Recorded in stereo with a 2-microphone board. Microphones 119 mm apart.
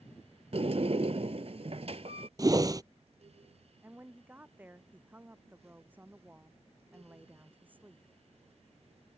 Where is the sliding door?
60° right (ahead or behind).